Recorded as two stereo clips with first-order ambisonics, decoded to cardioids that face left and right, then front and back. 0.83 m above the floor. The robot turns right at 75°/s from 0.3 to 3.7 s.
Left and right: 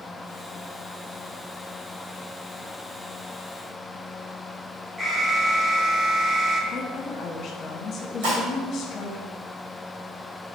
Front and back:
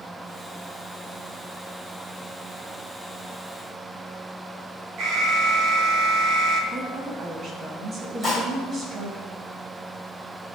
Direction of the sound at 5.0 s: 175° right.